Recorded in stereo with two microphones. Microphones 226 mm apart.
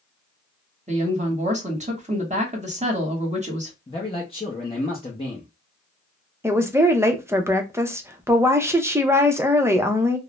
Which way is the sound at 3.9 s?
25° left (ahead or behind).